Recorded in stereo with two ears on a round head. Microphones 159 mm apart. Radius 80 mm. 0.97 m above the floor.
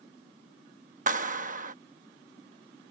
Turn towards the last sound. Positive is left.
turn(degrees=-45)  # may be behind; listen again after turning